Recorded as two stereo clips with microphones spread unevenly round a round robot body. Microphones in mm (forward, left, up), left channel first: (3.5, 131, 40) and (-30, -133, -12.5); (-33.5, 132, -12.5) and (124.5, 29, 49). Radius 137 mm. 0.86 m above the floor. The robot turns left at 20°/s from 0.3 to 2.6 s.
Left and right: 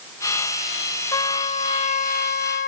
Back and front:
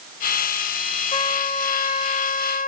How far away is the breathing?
No breathing in this recording.